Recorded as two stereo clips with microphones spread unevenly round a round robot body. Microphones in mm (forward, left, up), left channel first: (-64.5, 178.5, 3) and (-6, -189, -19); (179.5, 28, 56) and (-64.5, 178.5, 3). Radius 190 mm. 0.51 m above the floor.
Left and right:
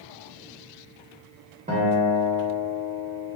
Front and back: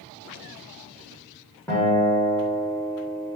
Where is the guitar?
130° right, 0.8 m.